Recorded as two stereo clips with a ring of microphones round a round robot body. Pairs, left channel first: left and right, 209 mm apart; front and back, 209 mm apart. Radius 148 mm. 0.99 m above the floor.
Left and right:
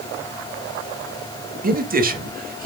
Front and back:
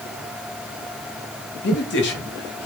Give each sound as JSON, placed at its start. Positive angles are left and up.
{"t": 1.6, "sound": "a man speaking", "azimuth_deg": -45, "distance_m": 1.6}